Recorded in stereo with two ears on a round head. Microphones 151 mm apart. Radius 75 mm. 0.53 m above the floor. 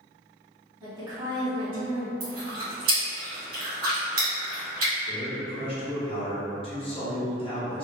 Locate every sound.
0.8 s a woman speaking: 25° right (ahead or behind), 1.4 m
2.2 s chewing: 55° right (ahead or behind), 1.9 m
5.1 s a man speaking: 35° left (ahead or behind), 0.9 m